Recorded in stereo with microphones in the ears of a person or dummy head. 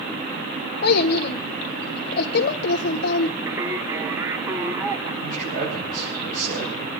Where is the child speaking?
55° left (ahead or behind), 0.5 m.